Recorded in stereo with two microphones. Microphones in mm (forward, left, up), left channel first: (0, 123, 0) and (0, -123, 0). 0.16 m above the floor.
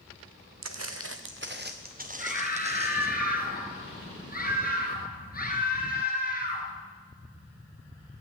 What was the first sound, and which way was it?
Footsteps, 75° right (ahead or behind).